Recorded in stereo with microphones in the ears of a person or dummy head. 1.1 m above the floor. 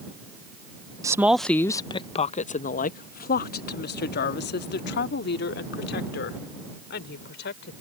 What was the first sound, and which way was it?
A woman speaking, 20° right (ahead or behind).